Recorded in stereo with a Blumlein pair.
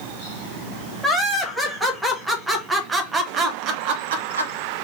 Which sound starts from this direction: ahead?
Laughter, at 1.0 s.